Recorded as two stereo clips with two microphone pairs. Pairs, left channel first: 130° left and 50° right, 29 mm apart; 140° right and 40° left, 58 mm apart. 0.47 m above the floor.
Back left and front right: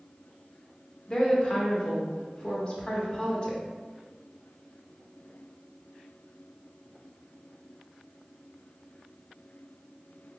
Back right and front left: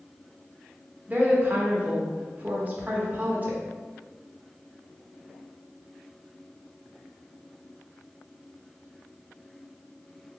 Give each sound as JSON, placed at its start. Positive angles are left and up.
{"t": 1.1, "sound": "a woman speaking", "azimuth_deg": 80, "distance_m": 1.0}